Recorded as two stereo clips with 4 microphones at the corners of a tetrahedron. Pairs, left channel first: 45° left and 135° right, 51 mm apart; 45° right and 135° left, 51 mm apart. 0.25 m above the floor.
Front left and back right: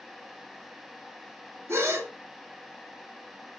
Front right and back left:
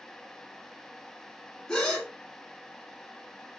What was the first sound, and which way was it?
A gasp, 120° right.